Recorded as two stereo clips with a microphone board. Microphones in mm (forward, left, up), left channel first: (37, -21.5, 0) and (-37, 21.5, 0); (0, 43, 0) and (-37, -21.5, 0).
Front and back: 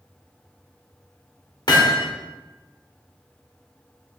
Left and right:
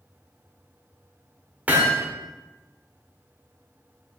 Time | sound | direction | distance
1.7 | hammering | 55° right | 1.7 m